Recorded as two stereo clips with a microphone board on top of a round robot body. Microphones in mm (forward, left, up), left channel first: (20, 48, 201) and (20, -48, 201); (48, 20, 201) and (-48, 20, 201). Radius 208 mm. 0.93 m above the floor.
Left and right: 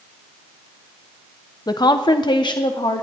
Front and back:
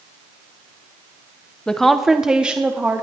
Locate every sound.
1.7 s a woman speaking: 80° left, 1.1 m; by 3.0 s 110° left, 1.6 m